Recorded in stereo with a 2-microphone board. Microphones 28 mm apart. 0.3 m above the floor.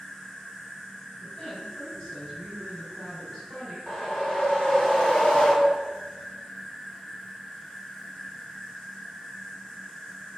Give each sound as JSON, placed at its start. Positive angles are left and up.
{"t": 0.0, "sound": "an insect", "side_deg": 20, "distance_m": 1.0}
{"t": 1.2, "sound": "a woman speaking", "side_deg": 35, "distance_m": 1.8}
{"t": 3.9, "sound": "a whoosh", "side_deg": 35, "distance_m": 0.9}